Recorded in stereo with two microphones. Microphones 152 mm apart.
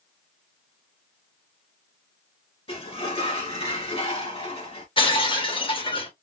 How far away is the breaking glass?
About 1.1 m.